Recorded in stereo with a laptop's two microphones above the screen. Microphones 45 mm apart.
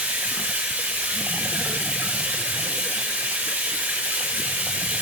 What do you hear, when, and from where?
0.0 s running water: 45° right (ahead or behind), 4.5 m